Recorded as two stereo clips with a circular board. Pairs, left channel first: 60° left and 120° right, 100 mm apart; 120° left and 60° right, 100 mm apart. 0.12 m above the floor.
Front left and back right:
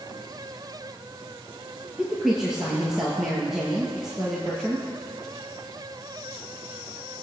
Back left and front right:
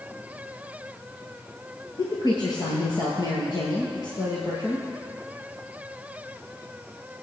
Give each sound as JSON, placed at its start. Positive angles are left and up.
{"t": 2.0, "sound": "a woman speaking", "azimuth_deg": 155, "distance_m": 1.9}